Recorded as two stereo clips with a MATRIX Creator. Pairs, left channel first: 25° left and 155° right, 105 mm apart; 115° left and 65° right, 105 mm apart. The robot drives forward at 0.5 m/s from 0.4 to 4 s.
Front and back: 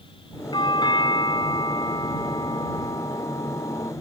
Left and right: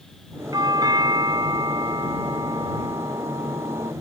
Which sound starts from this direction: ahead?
A doorbell, at 0.5 s.